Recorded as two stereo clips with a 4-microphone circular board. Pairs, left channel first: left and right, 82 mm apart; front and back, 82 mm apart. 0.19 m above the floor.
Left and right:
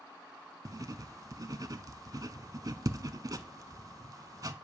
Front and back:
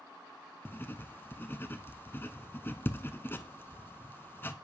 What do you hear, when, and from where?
0.7 s writing: 55° right, 0.5 m